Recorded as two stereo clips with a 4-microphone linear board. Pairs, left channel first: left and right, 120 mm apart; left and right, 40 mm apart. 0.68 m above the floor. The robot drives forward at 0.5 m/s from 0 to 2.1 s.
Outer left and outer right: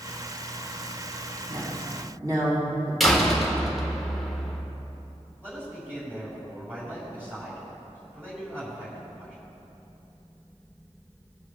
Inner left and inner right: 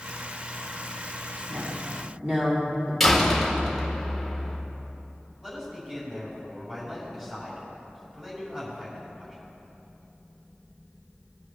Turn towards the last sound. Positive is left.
turn(degrees=-20)  # may be behind; listen again after turning